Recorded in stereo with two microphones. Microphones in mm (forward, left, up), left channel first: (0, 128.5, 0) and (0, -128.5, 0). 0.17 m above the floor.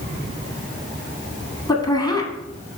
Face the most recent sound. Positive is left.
turn(degrees=15)  # may be behind; listen again after turning